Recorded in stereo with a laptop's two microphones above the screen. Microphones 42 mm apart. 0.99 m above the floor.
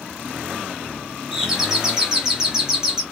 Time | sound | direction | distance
1.3 | a doorbell | 10° right (ahead or behind) | 0.7 m